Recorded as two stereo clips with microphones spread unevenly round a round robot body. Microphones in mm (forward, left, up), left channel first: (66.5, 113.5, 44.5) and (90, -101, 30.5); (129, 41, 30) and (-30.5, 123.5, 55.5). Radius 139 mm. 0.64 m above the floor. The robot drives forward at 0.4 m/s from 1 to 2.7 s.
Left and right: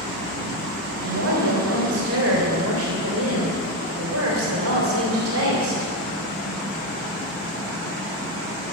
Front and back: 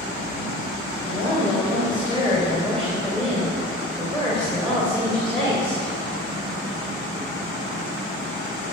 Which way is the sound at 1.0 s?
95° right.